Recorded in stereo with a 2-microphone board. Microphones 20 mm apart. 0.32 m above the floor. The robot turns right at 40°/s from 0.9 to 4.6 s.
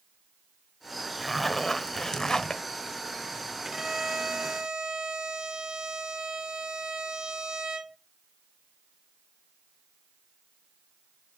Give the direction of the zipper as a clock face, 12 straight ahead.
12 o'clock.